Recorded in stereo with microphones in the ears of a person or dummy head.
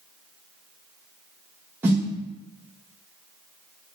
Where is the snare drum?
10° right (ahead or behind), 0.9 m.